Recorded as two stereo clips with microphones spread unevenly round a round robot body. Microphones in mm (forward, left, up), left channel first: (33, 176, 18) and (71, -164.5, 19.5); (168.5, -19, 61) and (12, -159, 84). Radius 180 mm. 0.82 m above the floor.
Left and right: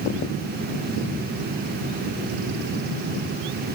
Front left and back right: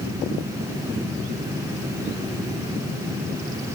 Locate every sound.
Only background noise.